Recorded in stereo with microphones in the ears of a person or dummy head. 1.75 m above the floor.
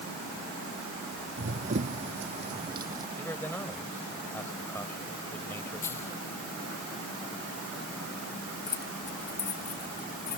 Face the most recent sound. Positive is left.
turn(degrees=15)  # may be behind; listen again after turning